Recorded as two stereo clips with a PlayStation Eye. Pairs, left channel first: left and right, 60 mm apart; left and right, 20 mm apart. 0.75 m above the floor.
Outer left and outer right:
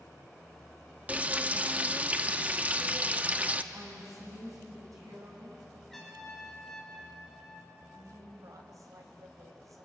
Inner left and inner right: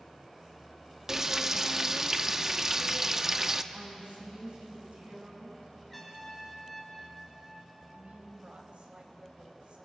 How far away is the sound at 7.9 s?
About 3.5 m.